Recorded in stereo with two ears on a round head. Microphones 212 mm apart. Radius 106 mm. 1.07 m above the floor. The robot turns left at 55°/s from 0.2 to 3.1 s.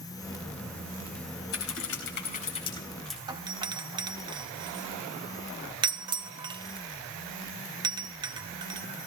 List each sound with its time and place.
1.5 s typing on a keyboard: 90° left, 4.5 m; by 3.2 s straight ahead, 4.5 m
3.3 s a doorbell: 20° right (ahead or behind), 0.8 m